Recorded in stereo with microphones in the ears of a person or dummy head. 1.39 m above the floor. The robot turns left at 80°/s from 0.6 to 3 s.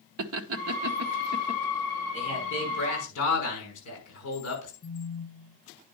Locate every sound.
0.2 s laughter: 75° right (ahead or behind), 1.0 m; by 1.6 s 25° right (ahead or behind), 1.0 m
2.1 s a man speaking: 150° left, 5.5 m; by 4.7 s 85° left, 5.5 m
4.8 s a phone buzzing: 40° left (ahead or behind), 1.7 m